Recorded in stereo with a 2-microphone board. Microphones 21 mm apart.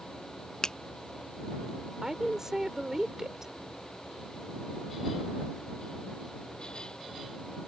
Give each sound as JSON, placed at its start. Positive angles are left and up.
{"t": 0.6, "sound": "a finger snap", "side_deg": 40}
{"t": 2.0, "sound": "a woman speaking", "side_deg": -25}